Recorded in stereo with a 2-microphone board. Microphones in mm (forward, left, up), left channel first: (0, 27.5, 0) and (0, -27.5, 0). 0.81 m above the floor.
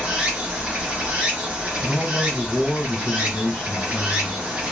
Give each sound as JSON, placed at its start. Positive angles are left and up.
{"t": 0.0, "sound": "running water", "side_deg": -20, "distance_m": 0.9}
{"t": 1.8, "sound": "a man speaking", "side_deg": 20, "distance_m": 1.0}